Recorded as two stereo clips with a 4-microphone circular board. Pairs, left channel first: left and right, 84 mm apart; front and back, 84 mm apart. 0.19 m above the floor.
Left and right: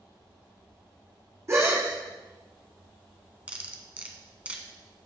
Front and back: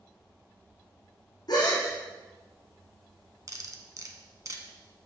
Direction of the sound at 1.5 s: 35° right.